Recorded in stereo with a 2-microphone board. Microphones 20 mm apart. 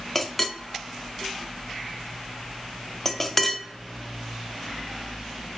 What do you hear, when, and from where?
0.1 s a clink: 15° left (ahead or behind), 0.6 m